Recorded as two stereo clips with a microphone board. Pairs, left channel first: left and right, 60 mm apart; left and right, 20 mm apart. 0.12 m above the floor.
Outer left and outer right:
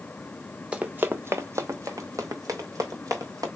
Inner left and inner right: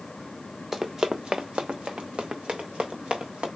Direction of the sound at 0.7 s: 20° right (ahead or behind).